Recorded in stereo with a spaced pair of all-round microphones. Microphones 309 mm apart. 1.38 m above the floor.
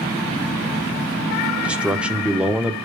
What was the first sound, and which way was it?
A man speaking, 5° right (ahead or behind).